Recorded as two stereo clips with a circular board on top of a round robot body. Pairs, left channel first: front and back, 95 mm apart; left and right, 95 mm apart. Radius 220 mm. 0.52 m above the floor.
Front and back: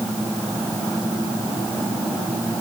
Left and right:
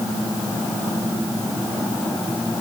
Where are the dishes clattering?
I don't hear dishes clattering.